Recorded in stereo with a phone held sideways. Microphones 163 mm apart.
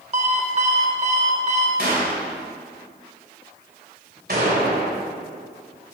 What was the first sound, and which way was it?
An alarm clock, 40° right (ahead or behind).